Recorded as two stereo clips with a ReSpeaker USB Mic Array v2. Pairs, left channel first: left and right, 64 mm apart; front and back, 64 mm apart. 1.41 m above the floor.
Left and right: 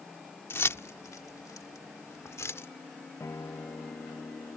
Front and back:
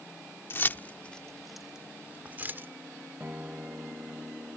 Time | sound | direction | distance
0.5 | keys jangling | 45° left | ?
3.2 | a guitar | 120° left | ?